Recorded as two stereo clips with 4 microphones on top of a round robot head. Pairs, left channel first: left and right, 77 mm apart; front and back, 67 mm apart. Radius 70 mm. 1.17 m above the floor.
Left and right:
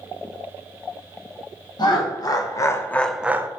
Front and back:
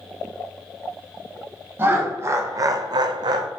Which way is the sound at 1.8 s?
120° left.